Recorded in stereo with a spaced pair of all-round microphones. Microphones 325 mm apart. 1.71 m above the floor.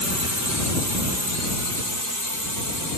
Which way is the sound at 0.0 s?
55° right (ahead or behind).